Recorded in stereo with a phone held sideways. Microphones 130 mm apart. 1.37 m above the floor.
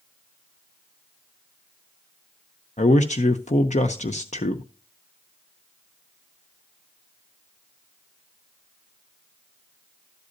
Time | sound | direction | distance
2.8 | a man speaking | 65° left (ahead or behind) | 0.7 m